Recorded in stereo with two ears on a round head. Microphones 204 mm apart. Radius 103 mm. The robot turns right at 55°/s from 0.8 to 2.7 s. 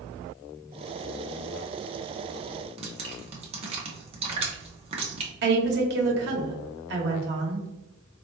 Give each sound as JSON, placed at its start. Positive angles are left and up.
{"t": 2.8, "sound": "dripping", "side_deg": -30, "distance_m": 0.9}
{"t": 5.4, "sound": "a woman speaking", "side_deg": -55, "distance_m": 1.2}